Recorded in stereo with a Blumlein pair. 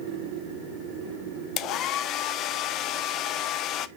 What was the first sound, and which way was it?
A hair dryer, 35° left.